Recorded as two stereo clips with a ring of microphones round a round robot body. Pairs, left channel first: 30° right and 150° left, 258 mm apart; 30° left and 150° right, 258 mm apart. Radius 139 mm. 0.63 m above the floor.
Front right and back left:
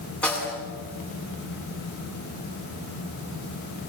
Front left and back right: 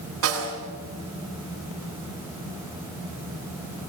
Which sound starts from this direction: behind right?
A snare drum, at 0.2 s.